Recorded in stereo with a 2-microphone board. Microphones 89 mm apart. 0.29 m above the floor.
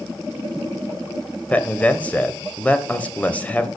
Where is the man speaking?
15° left (ahead or behind), 0.9 m.